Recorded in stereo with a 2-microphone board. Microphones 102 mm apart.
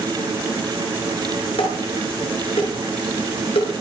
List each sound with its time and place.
1.6 s dishes clattering: 75° left (ahead or behind), 8.5 m